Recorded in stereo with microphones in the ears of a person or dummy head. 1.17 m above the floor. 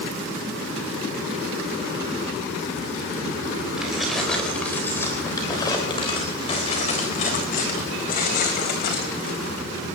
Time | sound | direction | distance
3.8 | keys jangling | 10° right (ahead or behind) | 4 m